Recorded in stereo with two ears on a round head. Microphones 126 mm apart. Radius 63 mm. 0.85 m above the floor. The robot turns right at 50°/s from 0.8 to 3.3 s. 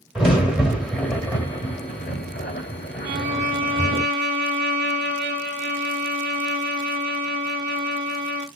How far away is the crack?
About 1.8 m.